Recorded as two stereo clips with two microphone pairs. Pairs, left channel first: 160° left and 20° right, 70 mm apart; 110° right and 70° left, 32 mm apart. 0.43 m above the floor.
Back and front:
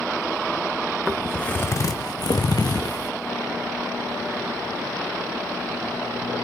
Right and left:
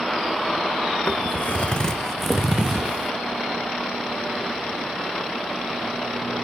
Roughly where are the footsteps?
Right.